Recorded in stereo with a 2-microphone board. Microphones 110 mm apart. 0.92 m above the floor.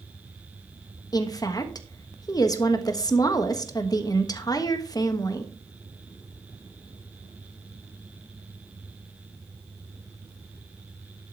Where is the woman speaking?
35° left (ahead or behind), 1.3 m.